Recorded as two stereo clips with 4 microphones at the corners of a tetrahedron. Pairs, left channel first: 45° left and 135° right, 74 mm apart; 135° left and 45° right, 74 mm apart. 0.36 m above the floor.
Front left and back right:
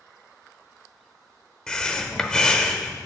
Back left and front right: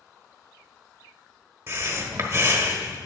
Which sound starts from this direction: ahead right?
Breathing, at 1.7 s.